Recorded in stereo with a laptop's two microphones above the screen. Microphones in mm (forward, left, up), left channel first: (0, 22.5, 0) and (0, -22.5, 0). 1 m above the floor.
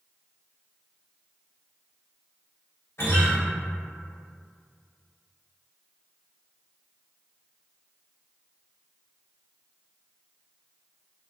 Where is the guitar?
65° left (ahead or behind), 1.3 m.